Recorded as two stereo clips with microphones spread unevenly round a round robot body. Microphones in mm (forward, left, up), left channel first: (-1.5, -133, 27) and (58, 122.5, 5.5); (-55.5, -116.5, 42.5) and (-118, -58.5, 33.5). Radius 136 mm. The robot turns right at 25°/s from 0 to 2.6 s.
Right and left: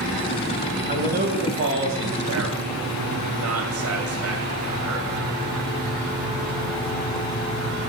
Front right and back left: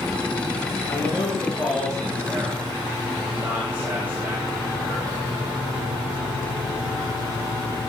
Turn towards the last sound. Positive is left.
turn(degrees=65)